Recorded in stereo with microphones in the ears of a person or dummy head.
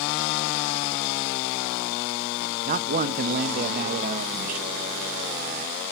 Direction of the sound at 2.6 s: 40° right (ahead or behind).